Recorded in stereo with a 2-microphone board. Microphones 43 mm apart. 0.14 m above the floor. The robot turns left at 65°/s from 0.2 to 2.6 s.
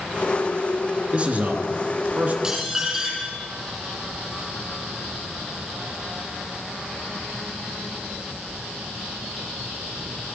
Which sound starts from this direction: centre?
Dishes clattering, at 2.4 s.